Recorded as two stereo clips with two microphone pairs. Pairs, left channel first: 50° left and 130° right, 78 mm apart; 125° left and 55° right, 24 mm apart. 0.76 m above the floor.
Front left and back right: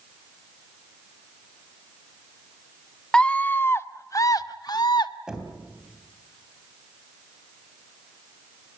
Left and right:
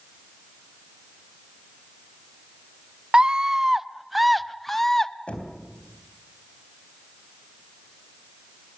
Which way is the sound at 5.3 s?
150° left.